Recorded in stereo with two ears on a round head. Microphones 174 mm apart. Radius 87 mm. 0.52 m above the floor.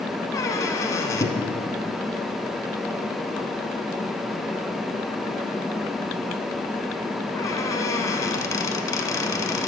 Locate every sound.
0.3 s a squeak: 20° left (ahead or behind), 0.9 m